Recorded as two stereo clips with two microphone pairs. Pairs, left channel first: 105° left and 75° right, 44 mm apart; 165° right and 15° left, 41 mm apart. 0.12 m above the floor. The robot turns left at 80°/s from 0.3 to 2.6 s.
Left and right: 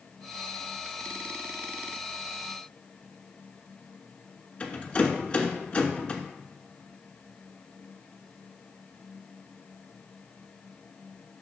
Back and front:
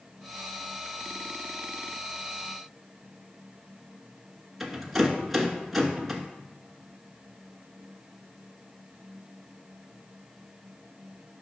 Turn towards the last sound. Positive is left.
turn(degrees=105)